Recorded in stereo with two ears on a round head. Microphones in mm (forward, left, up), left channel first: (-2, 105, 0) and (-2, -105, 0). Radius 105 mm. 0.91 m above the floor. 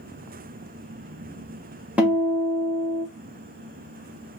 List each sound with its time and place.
2.0 s a guitar: 5° right (ahead or behind), 0.7 m